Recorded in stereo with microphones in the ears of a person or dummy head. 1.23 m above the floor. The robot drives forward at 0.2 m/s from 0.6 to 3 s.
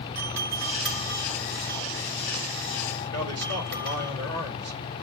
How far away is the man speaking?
About 2.5 m.